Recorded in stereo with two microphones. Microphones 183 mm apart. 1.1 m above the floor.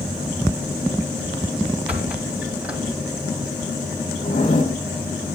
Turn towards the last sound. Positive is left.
turn(degrees=45)  # may be behind; listen again after turning